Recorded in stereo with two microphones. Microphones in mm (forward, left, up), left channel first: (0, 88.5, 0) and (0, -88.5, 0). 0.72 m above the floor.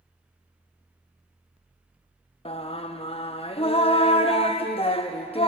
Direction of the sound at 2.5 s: 35° left (ahead or behind).